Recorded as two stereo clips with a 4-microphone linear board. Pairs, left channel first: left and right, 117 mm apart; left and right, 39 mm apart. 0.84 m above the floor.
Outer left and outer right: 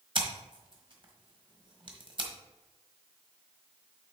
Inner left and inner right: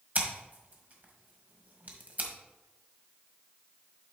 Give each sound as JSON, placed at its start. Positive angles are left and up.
{"t": 0.1, "sound": "scissors", "side_deg": -45, "distance_m": 1.4}